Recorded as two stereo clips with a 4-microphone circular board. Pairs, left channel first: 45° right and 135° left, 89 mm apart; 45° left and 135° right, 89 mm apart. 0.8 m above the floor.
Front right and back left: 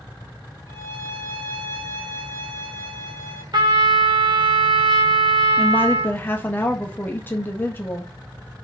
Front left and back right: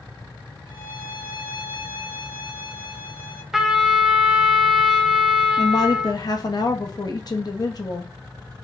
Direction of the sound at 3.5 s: 140° left.